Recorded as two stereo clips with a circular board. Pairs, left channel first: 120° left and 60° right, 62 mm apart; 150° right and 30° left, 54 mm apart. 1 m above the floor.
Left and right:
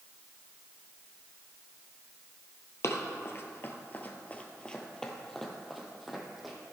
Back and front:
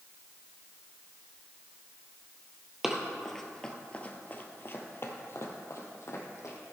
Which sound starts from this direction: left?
Running footsteps, at 2.8 s.